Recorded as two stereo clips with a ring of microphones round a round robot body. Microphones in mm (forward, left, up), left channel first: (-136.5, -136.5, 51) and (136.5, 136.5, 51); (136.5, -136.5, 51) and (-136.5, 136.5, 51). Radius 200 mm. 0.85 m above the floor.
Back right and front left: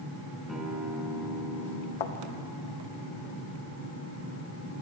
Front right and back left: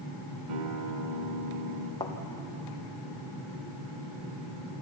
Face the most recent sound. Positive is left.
turn(degrees=-125)